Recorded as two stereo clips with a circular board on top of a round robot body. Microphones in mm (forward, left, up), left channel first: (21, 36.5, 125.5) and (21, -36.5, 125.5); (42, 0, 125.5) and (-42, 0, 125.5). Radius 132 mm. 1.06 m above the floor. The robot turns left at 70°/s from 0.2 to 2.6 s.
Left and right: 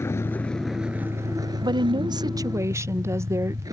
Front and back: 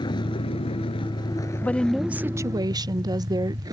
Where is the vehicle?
35° left; by 3.7 s 135° right.